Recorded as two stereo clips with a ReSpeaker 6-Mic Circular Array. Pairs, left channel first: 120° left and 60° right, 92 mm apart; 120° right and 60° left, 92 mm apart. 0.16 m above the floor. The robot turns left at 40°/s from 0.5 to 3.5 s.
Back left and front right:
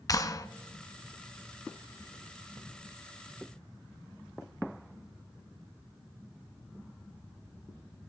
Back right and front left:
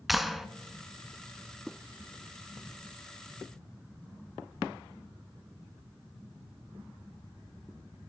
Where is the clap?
145° left, 1.1 m.